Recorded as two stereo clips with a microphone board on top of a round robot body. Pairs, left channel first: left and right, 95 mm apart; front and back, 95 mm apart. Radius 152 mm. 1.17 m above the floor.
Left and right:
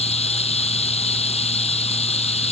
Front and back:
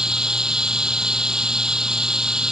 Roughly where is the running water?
Left.